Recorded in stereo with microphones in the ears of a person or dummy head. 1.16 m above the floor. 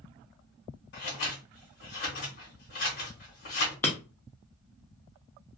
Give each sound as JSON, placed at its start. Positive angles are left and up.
{"t": 0.9, "sound": "scissors", "side_deg": 45, "distance_m": 1.3}
{"t": 3.8, "sound": "breaking glass", "side_deg": 10, "distance_m": 0.7}